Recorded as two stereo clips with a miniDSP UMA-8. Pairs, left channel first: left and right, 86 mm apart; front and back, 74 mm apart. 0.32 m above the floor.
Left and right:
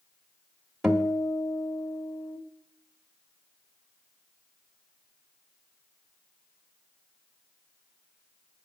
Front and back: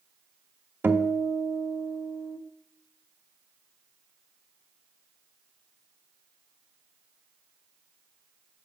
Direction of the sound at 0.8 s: 170° right.